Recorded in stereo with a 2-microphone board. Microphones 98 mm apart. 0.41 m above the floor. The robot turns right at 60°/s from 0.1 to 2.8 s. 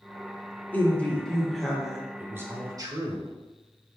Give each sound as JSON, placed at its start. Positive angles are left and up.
{"t": 0.7, "sound": "a woman speaking", "side_deg": 15, "distance_m": 0.9}
{"t": 2.2, "sound": "a man speaking", "azimuth_deg": -160, "distance_m": 1.0}